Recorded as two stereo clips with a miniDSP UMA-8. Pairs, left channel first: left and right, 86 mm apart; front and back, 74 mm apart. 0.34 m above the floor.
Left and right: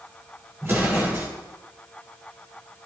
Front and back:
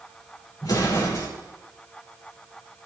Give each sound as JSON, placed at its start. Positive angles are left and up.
{"t": 0.6, "sound": "an explosion", "azimuth_deg": -30, "distance_m": 6.0}